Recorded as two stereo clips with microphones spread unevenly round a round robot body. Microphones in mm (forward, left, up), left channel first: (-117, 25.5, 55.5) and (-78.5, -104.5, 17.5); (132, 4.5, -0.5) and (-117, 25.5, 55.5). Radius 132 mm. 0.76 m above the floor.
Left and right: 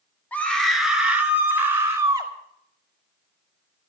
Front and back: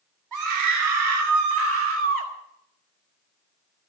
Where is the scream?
170° right, 2.5 m; by 2.3 s 140° right, 5 m.